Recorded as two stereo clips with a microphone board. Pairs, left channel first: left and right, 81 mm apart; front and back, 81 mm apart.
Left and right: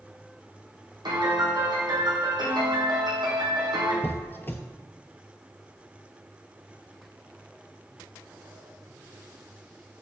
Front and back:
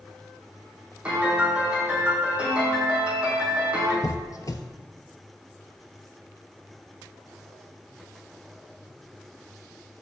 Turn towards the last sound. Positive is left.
turn(degrees=30)